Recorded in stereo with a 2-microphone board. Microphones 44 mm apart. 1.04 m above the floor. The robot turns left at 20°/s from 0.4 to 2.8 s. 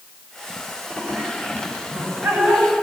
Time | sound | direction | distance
1.0 | laughter | 85° right | 9 m